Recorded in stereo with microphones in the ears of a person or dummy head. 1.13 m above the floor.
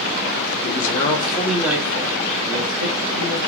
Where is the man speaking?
45° left (ahead or behind), 0.7 m; by 3.4 s 65° right (ahead or behind), 1.1 m.